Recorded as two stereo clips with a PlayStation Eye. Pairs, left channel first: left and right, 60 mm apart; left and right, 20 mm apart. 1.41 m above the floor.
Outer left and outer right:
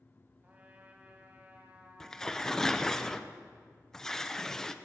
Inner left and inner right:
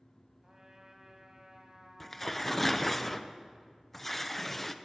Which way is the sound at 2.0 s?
10° left (ahead or behind).